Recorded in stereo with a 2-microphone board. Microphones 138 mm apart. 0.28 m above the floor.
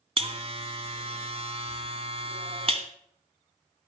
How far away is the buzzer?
About 1.4 m.